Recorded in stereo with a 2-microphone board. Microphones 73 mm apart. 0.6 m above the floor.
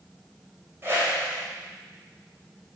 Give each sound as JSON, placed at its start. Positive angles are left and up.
{"t": 0.8, "sound": "a whoosh", "side_deg": -35, "distance_m": 2.0}